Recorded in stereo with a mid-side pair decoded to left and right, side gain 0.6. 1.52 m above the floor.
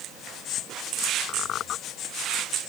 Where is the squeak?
55° left.